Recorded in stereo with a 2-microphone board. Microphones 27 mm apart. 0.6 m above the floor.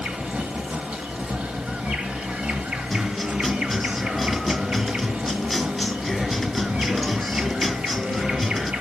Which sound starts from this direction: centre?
A guitar, at 2.9 s.